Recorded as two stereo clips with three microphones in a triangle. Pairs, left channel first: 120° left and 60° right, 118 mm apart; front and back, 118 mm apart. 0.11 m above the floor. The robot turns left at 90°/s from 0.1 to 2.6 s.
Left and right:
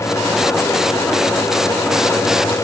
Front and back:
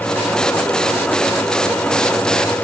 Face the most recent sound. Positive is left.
No sound to turn to.